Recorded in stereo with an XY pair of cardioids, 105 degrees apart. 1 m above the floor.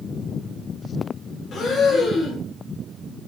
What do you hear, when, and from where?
1.5 s breathing: 55° left, 1.3 m